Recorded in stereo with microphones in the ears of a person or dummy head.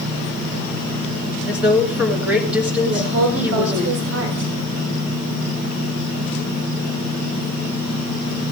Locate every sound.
1.5 s a woman speaking: 10° right (ahead or behind), 2.5 m
2.9 s a woman speaking: 70° right (ahead or behind), 4 m